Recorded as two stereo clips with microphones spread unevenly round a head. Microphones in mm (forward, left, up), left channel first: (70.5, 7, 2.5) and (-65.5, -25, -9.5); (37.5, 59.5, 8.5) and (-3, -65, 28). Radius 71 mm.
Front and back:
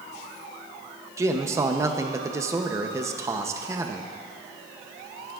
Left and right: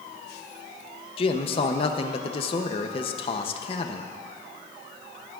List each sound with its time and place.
1.2 s a man speaking: 120° left, 0.7 m